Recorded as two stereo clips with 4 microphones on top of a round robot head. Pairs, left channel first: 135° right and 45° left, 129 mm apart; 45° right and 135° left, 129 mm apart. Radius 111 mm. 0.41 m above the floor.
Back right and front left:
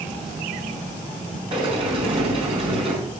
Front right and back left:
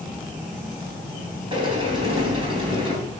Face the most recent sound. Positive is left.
turn(degrees=85)